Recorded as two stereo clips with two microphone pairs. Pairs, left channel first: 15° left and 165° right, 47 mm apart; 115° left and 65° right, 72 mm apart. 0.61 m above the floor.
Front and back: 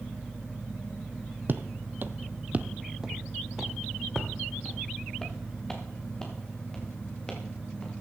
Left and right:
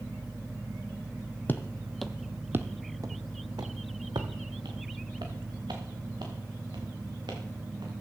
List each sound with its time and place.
1.5 s footsteps: 170° left, 1.0 m; by 7.9 s 55° right, 5.5 m